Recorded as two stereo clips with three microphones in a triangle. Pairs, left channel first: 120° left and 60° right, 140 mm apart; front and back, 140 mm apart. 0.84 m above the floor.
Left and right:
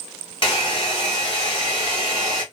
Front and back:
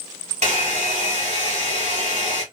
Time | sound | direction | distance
0.4 | a hair dryer | 165° left | 2.5 m